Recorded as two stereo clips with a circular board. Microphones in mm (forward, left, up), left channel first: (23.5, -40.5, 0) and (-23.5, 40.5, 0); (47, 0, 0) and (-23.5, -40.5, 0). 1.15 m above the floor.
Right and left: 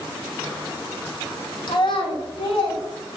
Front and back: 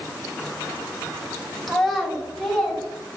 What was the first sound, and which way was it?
A child speaking, 55° right.